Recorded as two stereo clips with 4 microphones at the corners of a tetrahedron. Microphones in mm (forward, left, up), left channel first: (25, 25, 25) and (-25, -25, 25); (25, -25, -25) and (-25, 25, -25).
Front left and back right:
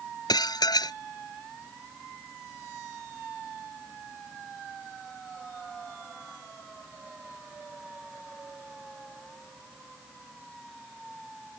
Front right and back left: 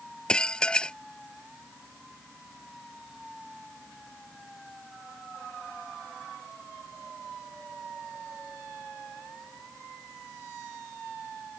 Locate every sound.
0.3 s dishes clattering: 35° left